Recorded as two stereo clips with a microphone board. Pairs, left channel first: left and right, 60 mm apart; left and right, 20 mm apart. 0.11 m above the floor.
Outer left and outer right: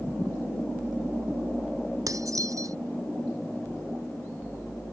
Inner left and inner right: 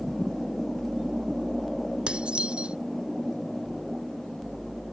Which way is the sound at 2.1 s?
70° right (ahead or behind).